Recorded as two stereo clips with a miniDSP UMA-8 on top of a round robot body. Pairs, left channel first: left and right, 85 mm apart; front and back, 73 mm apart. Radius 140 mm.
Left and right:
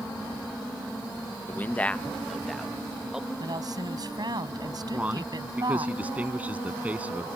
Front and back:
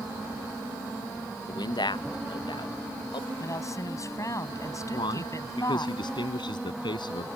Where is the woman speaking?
45° right.